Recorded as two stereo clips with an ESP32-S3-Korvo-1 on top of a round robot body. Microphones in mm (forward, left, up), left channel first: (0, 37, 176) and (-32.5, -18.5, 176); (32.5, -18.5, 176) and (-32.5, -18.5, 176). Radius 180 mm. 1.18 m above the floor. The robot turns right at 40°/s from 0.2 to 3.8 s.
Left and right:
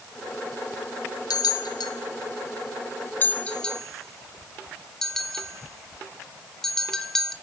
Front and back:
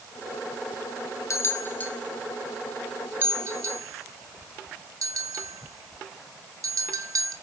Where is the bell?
45° left, 1.5 m; by 7.3 s 145° left, 1.5 m.